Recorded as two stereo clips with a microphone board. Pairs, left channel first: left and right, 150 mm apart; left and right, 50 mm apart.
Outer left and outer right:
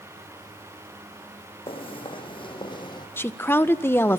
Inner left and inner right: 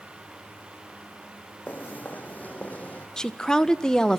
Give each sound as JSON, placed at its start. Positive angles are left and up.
{"t": 1.7, "sound": "footsteps", "side_deg": 35, "distance_m": 5.5}
{"t": 3.2, "sound": "a woman speaking", "side_deg": 15, "distance_m": 1.5}